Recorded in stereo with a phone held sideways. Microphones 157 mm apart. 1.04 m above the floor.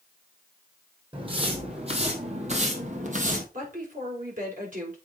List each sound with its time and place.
1.1 s footsteps: 35° right (ahead or behind), 2.5 m; by 3.4 s 55° right (ahead or behind), 2 m
3.5 s a woman speaking: 55° right (ahead or behind), 4.5 m